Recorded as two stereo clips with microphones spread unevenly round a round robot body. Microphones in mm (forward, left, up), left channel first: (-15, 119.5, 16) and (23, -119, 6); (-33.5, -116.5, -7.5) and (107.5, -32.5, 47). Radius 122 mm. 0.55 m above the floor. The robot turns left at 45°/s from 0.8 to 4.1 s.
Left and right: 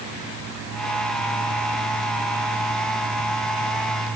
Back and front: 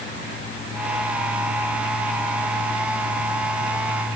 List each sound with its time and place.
Only background noise.